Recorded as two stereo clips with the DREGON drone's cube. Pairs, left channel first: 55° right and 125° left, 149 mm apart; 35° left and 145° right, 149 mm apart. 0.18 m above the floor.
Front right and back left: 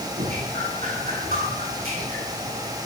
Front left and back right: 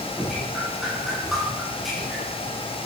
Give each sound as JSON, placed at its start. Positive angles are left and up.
{"t": 0.2, "sound": "dripping", "azimuth_deg": 125, "distance_m": 6.5}